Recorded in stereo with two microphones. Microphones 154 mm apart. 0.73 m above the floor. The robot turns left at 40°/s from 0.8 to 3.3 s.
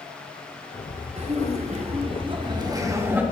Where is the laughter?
80° right, 0.9 m; by 3.2 s 165° right, 0.9 m.